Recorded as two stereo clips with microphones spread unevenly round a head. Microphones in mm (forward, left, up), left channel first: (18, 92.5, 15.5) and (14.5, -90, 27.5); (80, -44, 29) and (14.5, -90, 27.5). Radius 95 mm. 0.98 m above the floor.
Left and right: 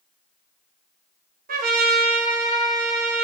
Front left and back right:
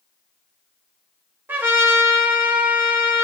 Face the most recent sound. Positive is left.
turn(degrees=-85)